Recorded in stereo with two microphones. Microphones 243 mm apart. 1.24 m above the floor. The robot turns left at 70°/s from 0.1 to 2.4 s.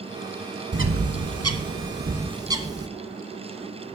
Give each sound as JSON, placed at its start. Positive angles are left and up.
{"t": 0.7, "sound": "a bird", "side_deg": -45, "distance_m": 0.9}